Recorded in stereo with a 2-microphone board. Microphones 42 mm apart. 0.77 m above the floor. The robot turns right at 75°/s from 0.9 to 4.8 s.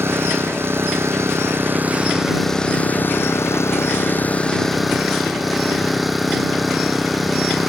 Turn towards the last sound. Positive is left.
turn(degrees=180)